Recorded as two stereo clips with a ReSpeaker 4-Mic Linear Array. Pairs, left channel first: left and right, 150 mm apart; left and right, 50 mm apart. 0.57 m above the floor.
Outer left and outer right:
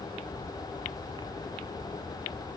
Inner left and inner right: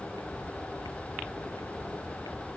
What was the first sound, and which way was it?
Only background noise.